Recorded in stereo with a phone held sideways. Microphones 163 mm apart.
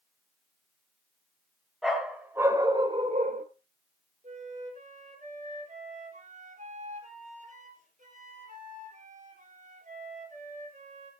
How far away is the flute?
About 4 m.